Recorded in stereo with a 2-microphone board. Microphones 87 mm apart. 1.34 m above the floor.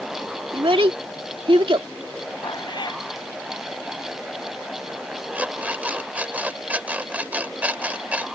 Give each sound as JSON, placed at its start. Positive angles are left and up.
{"t": 0.5, "sound": "a child speaking", "side_deg": -70}
{"t": 2.4, "sound": "a cat meowing", "side_deg": 55}
{"t": 5.3, "sound": "an alarm clock", "side_deg": -15}